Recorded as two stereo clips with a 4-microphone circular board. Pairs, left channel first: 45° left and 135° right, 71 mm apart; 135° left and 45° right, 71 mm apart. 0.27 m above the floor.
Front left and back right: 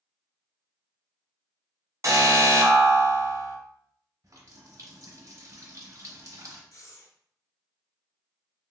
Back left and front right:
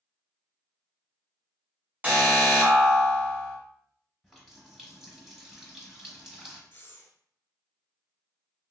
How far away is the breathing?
About 0.7 m.